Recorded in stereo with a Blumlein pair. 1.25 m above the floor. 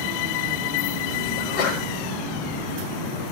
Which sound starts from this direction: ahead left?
A sneeze, at 1.4 s.